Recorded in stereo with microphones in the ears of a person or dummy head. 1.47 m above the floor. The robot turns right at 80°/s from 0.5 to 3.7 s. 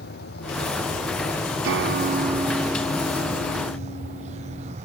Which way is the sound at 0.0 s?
65° left.